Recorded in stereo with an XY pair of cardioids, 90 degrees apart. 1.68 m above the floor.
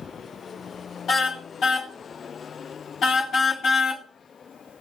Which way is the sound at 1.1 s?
65° left.